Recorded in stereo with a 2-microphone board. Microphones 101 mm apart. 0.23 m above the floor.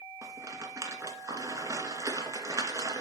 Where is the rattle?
30° right (ahead or behind), 2 m.